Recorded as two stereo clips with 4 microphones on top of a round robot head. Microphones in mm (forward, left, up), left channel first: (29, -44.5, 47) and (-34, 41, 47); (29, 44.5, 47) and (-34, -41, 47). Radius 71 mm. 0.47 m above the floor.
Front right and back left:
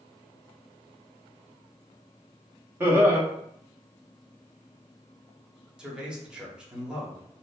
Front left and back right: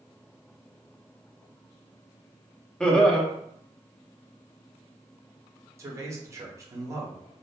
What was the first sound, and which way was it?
Laughter, 115° left.